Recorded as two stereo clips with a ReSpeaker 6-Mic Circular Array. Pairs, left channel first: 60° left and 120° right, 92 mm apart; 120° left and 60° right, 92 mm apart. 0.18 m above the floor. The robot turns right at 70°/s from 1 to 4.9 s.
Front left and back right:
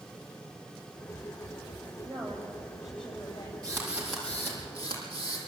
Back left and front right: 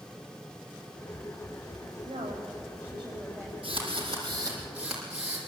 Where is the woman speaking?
85° right, 8 m; by 3.5 s 15° left, 8 m.